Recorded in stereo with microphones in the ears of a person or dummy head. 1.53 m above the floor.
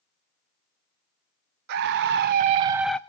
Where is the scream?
65° right (ahead or behind), 1.1 m; by 3.0 s 5° left (ahead or behind), 0.5 m.